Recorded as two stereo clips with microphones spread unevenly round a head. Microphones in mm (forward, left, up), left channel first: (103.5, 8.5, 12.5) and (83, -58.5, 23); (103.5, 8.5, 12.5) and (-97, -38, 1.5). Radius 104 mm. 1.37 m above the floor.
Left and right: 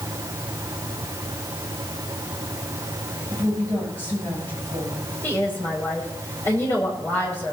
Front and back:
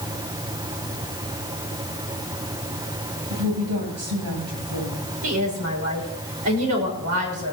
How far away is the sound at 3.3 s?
About 10 m.